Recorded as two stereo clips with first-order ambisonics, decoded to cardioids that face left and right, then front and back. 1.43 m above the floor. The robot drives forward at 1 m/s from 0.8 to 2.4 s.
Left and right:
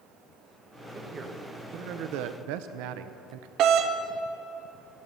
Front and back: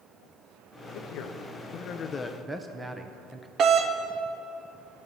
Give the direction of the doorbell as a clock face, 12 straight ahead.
4 o'clock.